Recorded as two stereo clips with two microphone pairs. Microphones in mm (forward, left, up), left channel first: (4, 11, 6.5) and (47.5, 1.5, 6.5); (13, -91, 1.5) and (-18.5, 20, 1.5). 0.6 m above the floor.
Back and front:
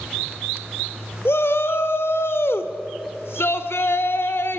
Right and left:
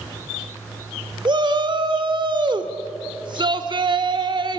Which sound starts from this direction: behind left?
A shout, at 1.2 s.